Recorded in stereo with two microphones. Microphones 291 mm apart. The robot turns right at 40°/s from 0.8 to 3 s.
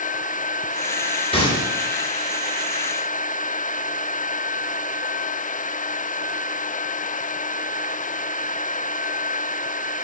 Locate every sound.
1.3 s a gunshot: 20° left (ahead or behind), 2.5 m; by 1.7 s 10° left (ahead or behind), 2.5 m